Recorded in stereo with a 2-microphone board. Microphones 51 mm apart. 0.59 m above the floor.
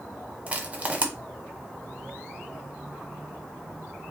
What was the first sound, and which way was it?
Crushing, 25° right (ahead or behind).